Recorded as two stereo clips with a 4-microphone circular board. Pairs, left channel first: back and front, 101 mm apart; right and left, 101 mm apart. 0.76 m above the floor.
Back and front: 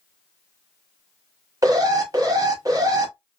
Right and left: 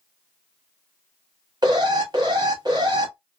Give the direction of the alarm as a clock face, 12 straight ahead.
10 o'clock.